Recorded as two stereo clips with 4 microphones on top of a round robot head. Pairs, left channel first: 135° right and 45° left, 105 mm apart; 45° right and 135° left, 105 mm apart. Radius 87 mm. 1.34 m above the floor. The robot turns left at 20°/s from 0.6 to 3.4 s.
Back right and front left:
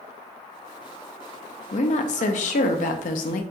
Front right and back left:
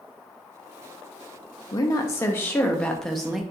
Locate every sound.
1.7 s a woman speaking: 105° right, 0.5 m; by 3.4 s 140° right, 0.5 m